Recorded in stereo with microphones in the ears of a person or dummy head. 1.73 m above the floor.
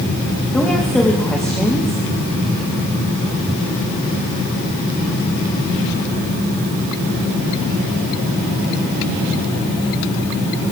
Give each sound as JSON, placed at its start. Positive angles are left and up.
{"t": 0.5, "sound": "a woman speaking", "side_deg": 5, "distance_m": 3.0}